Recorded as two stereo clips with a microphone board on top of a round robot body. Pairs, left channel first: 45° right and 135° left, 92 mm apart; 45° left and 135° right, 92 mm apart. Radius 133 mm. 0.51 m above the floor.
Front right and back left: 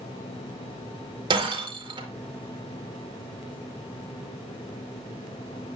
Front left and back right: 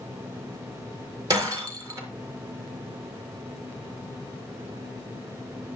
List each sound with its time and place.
1.3 s breaking glass: 170° left, 4.5 m